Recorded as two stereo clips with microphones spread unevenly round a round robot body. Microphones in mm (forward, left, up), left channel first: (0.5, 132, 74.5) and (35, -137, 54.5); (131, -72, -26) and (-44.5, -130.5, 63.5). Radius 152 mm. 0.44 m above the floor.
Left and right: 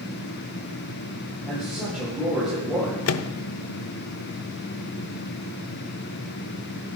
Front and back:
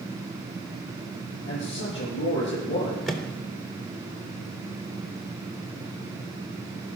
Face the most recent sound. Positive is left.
turn(degrees=85)